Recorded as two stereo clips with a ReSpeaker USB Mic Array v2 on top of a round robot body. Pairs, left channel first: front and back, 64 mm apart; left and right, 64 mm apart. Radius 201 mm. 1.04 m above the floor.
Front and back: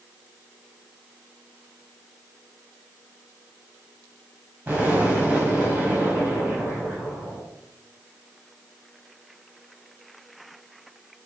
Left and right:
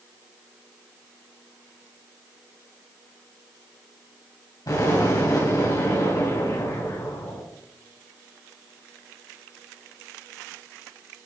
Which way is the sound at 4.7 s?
115° left.